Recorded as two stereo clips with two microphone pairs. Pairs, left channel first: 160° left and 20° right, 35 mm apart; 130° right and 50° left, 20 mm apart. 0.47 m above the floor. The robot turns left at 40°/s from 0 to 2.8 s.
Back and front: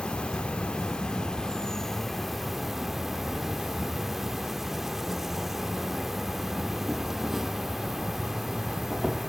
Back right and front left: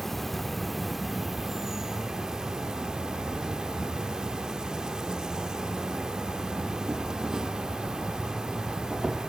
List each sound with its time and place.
0.0 s an insect: 170° left, 0.7 m; by 9.3 s 55° left, 0.7 m